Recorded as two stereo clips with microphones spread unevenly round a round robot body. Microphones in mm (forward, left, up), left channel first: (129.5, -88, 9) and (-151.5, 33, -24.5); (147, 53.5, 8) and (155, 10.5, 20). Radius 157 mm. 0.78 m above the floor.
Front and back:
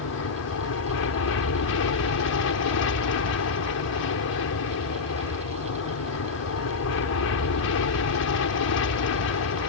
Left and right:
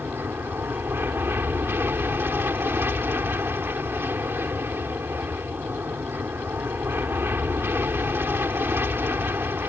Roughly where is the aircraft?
Ahead right.